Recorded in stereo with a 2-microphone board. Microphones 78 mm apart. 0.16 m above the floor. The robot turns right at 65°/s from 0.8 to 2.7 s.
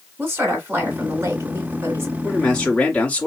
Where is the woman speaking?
130° right, 1.4 m; by 2.1 s 45° right, 1.4 m.